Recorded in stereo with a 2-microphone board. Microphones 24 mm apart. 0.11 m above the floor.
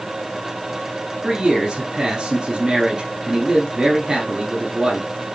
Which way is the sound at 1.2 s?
25° right (ahead or behind).